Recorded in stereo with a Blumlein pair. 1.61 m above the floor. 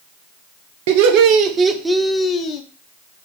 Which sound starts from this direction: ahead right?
Laughter, at 0.9 s.